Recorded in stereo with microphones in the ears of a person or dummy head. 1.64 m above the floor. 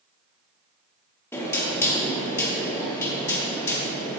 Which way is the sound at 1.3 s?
15° left (ahead or behind).